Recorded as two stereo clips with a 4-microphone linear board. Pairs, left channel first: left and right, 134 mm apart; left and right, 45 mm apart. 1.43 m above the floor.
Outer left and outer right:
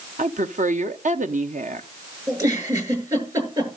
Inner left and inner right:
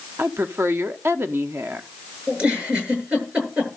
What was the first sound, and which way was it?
A woman speaking, 65° right (ahead or behind).